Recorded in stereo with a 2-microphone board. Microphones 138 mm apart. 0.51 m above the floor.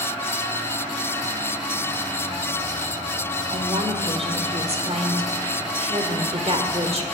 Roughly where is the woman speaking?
Right.